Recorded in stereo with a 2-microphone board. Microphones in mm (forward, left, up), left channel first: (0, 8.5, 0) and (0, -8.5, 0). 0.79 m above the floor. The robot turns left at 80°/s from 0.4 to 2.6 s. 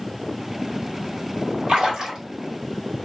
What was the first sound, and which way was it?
A splash, 115° right.